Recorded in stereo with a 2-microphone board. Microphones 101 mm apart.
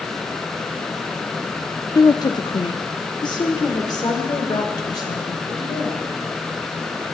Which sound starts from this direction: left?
A woman speaking, at 1.9 s.